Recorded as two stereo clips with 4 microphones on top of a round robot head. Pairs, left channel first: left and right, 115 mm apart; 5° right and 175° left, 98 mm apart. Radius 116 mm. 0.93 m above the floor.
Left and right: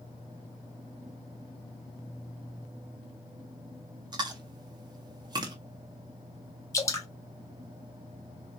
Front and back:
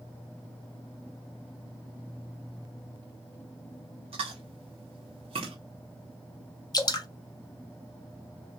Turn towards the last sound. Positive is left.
turn(degrees=35)